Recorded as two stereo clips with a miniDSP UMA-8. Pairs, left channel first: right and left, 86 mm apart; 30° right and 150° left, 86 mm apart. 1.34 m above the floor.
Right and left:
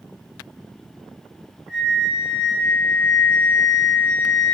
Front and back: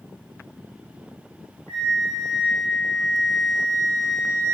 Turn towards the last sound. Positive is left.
turn(degrees=15)